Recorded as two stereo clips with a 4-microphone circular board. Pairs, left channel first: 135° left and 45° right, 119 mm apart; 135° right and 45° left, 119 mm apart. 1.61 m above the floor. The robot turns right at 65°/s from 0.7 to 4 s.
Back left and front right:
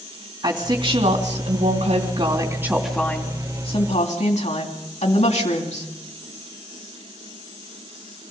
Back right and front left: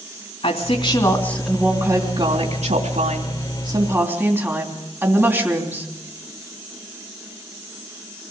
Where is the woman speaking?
100° right, 3 m; by 5.9 s 115° left, 3 m.